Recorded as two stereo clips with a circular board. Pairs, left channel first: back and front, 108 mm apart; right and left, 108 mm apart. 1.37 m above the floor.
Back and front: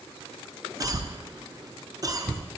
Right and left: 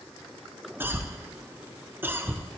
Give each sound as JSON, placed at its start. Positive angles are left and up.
{"t": 0.8, "sound": "a cough", "azimuth_deg": 30, "distance_m": 0.5}